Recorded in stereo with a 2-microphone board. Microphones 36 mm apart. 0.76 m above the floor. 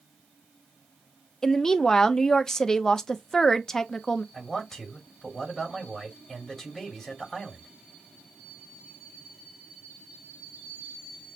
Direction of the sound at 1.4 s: 15° left (ahead or behind).